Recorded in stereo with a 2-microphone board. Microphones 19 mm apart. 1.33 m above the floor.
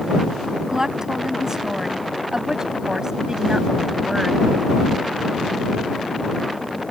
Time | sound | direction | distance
0.7 | a woman speaking | 25° right (ahead or behind) | ?